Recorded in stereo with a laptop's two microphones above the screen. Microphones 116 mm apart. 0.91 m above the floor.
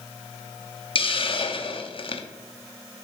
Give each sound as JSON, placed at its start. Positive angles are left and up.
{"t": 0.9, "sound": "a hiss", "side_deg": 50, "distance_m": 0.8}